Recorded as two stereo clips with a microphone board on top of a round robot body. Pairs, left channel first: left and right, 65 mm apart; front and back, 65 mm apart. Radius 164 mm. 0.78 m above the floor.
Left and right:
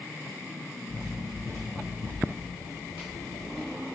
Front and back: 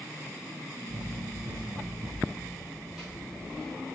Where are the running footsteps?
160° left, 1.7 m; by 3.8 s 80° left, 2.0 m.